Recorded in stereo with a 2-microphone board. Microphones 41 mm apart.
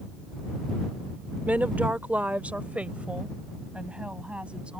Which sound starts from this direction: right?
A woman speaking, at 1.5 s.